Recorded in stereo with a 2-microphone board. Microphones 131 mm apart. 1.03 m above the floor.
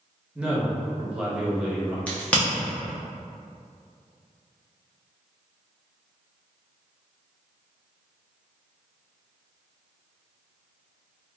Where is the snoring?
No snoring in this recording.